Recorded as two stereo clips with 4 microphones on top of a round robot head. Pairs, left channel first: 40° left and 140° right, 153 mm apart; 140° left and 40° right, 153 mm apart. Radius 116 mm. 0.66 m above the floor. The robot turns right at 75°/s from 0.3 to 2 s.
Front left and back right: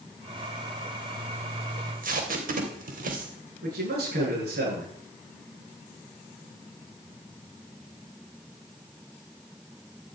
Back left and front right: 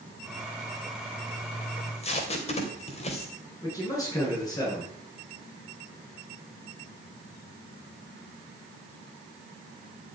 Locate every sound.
1.8 s tape being pulled: 170° left, 3 m; by 3.3 s 170° right, 3 m
3.6 s a man speaking: 150° right, 10 m